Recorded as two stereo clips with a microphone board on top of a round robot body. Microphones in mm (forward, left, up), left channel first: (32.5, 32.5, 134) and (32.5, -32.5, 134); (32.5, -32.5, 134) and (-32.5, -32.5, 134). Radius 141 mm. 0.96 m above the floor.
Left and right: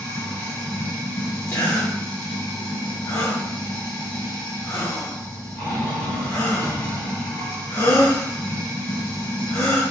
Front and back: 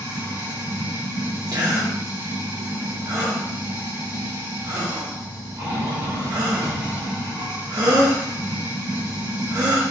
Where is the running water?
150° left, 3 m.